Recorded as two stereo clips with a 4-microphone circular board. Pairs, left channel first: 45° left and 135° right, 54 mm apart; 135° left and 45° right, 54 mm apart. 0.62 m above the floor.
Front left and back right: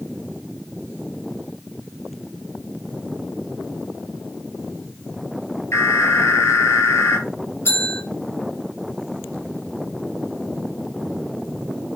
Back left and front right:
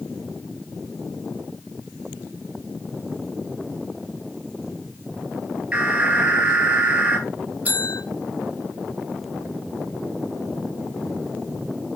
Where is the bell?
10° left, 3.5 m.